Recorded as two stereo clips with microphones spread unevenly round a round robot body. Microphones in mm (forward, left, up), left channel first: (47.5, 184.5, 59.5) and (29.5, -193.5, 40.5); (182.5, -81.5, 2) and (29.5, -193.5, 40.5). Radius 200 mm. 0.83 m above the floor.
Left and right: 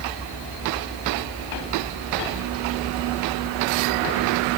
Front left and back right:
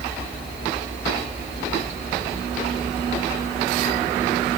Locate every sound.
Only background noise.